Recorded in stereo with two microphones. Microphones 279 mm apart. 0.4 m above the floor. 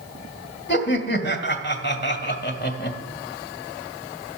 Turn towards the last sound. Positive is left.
turn(degrees=40)  # may be behind; listen again after turning